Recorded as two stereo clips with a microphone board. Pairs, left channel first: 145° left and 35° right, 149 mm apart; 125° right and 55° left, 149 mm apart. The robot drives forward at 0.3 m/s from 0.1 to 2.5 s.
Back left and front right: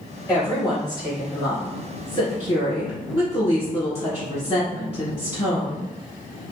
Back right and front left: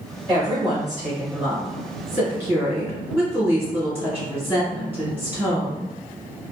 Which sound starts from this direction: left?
A woman speaking, at 0.3 s.